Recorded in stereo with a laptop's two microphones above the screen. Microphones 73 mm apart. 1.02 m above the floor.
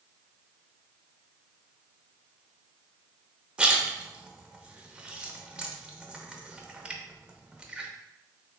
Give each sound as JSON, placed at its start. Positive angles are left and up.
{"t": 3.6, "sound": "a splash", "side_deg": -15, "distance_m": 0.8}